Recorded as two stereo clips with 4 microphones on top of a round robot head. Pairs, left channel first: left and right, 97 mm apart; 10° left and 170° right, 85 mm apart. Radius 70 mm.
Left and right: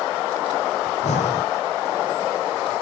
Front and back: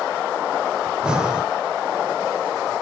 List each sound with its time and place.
0.9 s breathing: 110° left, 1.1 m